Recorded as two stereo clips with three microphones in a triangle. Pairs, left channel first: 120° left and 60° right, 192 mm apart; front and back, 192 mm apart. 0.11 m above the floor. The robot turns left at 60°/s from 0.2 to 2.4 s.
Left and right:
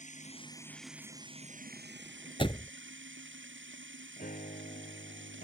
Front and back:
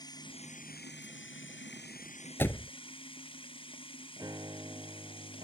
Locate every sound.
0.0 s running water: 70° left; by 5.5 s 65° right
2.4 s a door slam: 70° left
4.2 s a piano: 115° left